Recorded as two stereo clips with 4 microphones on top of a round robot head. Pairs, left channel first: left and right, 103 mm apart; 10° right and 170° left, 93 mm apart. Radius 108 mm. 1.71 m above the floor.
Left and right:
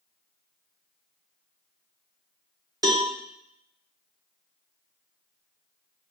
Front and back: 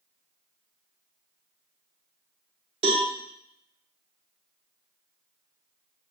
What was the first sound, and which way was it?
A cowbell, 140° right.